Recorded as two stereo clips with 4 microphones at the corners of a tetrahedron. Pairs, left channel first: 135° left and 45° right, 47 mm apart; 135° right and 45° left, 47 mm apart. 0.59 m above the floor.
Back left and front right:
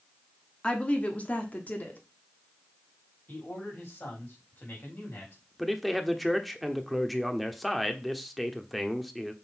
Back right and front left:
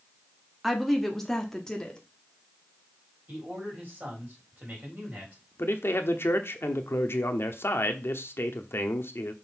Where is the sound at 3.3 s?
95° left, 4 m.